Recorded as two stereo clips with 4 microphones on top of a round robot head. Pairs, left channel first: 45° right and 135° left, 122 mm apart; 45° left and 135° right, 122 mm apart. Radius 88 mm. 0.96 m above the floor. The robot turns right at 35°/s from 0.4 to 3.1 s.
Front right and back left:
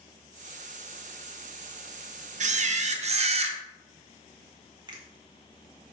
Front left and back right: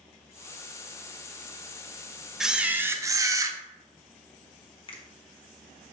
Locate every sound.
2.4 s a camera shutter: 135° left, 0.8 m; by 3.6 s 160° left, 0.8 m
4.9 s a finger snap: 85° left, 1.6 m